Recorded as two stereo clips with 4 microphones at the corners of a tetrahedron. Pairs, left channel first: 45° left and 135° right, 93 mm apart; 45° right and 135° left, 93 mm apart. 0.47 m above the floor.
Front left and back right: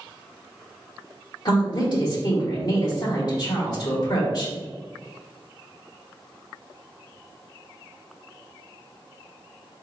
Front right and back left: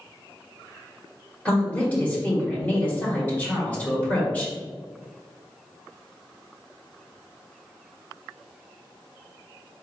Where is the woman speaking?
25° left, 1.3 m.